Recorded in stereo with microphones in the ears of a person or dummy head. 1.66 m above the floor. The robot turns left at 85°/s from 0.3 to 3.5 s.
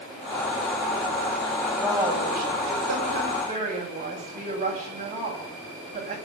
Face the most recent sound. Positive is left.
turn(degrees=-150)